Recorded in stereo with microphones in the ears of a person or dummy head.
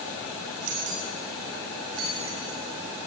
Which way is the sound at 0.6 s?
80° right.